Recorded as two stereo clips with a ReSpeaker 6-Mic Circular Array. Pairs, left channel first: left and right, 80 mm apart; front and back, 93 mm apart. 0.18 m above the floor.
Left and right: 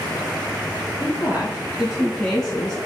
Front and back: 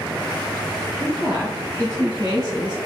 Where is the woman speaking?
145° right, 1.5 m; by 2.8 s 165° left, 1.6 m.